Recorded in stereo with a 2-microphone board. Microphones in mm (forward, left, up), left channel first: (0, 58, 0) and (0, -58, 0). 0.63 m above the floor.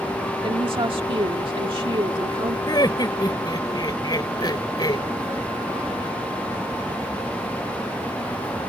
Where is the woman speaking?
45° right (ahead or behind).